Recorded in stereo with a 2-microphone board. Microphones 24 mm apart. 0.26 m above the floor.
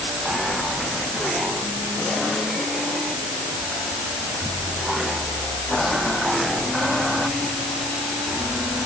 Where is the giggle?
No giggle in this recording.